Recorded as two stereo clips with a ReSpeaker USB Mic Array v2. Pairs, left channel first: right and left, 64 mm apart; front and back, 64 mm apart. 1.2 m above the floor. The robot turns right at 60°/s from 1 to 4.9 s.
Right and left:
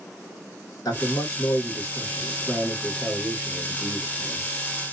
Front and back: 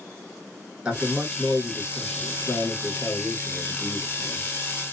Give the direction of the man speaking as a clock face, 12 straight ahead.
4 o'clock.